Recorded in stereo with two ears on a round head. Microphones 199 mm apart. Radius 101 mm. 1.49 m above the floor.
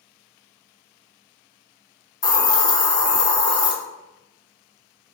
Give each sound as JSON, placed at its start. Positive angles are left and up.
{"t": 2.2, "sound": "a hiss", "side_deg": 20, "distance_m": 0.6}